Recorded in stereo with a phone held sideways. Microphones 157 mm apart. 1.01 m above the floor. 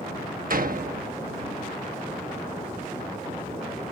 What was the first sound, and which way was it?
A door slam, 65° right (ahead or behind).